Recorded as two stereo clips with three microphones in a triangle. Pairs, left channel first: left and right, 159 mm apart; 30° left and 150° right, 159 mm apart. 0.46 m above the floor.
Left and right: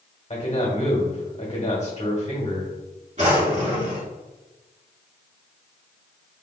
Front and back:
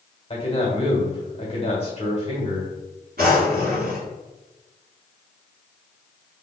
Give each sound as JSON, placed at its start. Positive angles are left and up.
{"t": 0.3, "sound": "a man speaking", "azimuth_deg": 65, "distance_m": 1.3}
{"t": 3.2, "sound": "a drawer", "azimuth_deg": -135, "distance_m": 1.6}